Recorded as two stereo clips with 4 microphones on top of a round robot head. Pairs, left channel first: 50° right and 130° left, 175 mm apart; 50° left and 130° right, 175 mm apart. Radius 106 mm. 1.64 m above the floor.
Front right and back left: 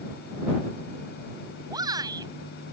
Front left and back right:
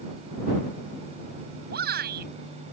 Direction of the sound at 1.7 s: 160° right.